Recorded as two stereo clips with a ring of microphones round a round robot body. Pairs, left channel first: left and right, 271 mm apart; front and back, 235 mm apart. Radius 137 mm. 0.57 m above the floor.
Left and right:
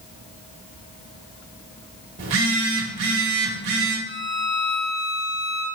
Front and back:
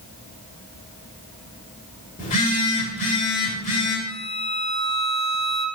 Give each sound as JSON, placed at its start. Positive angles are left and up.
{"t": 2.2, "sound": "a phone buzzing", "azimuth_deg": -60, "distance_m": 1.9}
{"t": 4.1, "sound": "a violin", "azimuth_deg": 90, "distance_m": 2.0}